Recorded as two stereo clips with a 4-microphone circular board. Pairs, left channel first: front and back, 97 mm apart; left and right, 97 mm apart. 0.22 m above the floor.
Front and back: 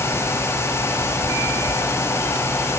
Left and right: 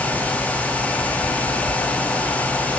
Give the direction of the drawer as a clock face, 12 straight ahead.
No drawer in this recording.